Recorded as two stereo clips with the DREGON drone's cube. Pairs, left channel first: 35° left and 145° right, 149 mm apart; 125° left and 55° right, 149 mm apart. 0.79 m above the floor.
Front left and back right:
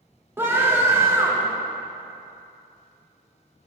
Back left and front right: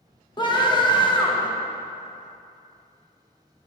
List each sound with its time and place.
0.4 s a scream: 150° left, 1.2 m